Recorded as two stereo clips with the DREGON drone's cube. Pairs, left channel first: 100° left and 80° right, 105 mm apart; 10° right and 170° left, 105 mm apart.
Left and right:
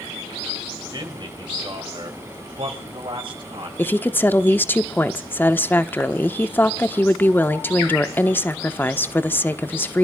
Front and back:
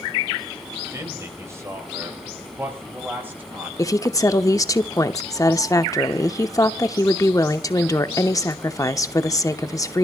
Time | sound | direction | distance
0.9 | a man speaking | 130° right | 4.5 m
3.8 | a woman speaking | 35° left | 0.9 m